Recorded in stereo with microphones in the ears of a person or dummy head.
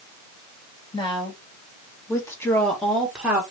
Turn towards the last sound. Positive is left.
turn(degrees=-15)  # may be behind; listen again after turning